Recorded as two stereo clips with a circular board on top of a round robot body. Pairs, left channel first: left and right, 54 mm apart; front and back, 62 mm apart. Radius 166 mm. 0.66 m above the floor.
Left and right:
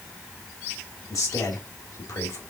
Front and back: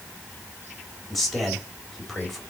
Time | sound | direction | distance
1.1 | a man speaking | 85° left | 3.5 m